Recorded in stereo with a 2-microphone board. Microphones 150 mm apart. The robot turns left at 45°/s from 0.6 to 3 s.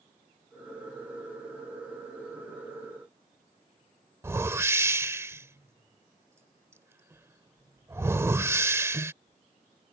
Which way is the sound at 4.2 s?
20° right (ahead or behind).